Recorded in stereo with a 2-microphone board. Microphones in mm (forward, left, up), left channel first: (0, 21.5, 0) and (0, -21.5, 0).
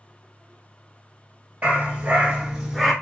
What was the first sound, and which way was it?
A dog barking, 35° right (ahead or behind).